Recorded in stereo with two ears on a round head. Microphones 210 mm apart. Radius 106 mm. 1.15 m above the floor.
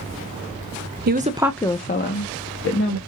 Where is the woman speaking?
45° right (ahead or behind), 0.6 m; by 3.0 s 70° left (ahead or behind), 1.5 m.